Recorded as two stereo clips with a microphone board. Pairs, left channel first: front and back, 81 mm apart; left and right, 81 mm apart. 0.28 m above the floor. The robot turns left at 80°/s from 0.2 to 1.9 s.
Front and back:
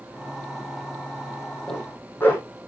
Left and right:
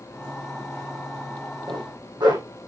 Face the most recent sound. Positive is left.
turn(degrees=-65)